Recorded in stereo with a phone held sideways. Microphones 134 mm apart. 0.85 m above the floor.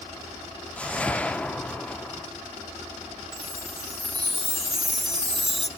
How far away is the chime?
About 2.5 m.